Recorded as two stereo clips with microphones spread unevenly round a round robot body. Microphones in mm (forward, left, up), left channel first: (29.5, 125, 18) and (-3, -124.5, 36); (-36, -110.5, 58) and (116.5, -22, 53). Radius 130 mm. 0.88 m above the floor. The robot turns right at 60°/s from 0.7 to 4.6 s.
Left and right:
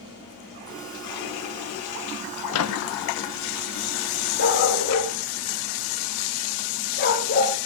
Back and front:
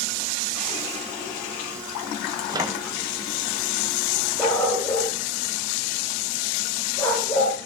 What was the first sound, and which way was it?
A microwave, 95° left.